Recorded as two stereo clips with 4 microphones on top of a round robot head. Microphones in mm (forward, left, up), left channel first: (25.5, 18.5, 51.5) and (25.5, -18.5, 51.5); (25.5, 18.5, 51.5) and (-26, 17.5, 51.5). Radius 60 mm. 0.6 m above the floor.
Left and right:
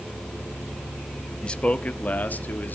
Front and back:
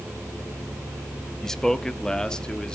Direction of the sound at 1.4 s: 75° left.